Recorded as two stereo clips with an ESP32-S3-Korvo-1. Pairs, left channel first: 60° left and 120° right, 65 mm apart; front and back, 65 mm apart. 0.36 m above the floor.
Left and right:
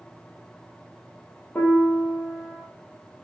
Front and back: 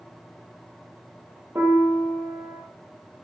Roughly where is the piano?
Behind left.